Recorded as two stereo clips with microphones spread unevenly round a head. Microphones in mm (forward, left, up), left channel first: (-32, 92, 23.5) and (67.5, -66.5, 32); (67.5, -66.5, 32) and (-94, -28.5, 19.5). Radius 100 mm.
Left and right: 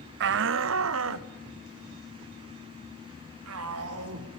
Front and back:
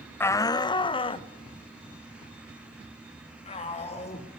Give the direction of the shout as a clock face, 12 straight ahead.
3 o'clock.